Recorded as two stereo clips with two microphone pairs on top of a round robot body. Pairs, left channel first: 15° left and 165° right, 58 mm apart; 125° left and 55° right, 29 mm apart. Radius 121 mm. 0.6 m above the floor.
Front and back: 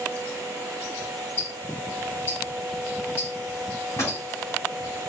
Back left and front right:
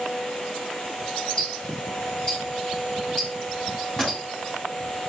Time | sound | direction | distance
1.4 | ticking | 65° left | 4 m
4.0 | a pop | 60° left | 3 m